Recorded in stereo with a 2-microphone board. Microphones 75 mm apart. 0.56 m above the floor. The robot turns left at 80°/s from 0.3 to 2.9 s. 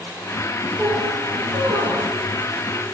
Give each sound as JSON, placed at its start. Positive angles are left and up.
{"t": 0.8, "sound": "a squeak", "azimuth_deg": -20, "distance_m": 9.5}